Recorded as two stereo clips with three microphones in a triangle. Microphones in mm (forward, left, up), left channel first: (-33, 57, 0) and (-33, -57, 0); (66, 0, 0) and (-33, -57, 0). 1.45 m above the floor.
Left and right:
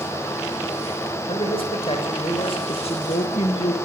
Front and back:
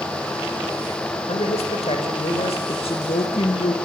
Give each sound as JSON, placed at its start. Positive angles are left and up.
{"t": 1.3, "sound": "a man speaking", "azimuth_deg": 55, "distance_m": 6.0}
{"t": 2.7, "sound": "a woman speaking", "azimuth_deg": 65, "distance_m": 2.5}